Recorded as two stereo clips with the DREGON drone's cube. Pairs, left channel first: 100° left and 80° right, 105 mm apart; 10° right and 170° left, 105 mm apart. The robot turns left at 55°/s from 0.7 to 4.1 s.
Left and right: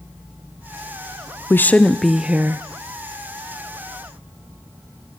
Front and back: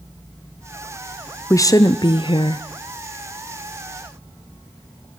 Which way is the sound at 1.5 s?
40° left.